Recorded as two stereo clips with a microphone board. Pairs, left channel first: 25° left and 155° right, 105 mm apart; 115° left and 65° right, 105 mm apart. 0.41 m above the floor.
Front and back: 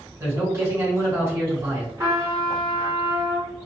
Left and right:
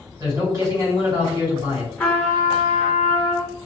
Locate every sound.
0.2 s a man speaking: 110° right, 1.9 m
2.0 s a trumpet: 175° left, 1.5 m